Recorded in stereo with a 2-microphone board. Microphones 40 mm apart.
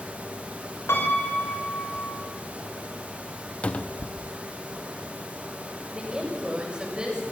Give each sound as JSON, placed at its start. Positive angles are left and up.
{"t": 0.9, "sound": "a piano", "side_deg": 80, "distance_m": 3.5}
{"t": 3.6, "sound": "a cupboard door", "side_deg": 30, "distance_m": 0.5}
{"t": 5.9, "sound": "a woman speaking", "side_deg": -20, "distance_m": 6.5}